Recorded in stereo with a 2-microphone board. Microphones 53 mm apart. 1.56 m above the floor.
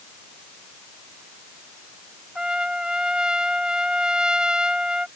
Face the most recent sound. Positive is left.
turn(degrees=-15)  # may be behind; listen again after turning